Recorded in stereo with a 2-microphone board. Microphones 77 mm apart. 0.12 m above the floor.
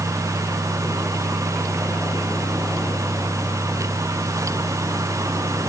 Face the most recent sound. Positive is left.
No sound to turn to.